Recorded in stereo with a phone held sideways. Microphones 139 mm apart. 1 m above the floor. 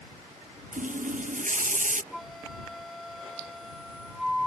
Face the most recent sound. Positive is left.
turn(degrees=0)  # may be behind; listen again after turning